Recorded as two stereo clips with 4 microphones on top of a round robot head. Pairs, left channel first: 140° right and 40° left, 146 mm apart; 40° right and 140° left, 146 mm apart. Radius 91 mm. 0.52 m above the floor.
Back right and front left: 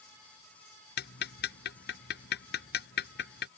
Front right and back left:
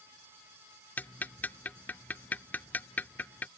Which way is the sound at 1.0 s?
120° right.